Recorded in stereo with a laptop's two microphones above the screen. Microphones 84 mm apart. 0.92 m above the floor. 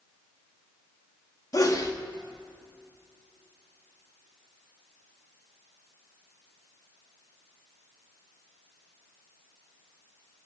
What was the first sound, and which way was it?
A sneeze, 40° left (ahead or behind).